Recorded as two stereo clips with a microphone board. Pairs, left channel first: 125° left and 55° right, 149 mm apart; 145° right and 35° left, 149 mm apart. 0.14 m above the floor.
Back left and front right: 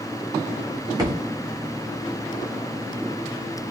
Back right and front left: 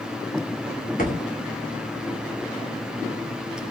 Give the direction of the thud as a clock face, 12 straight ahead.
4 o'clock.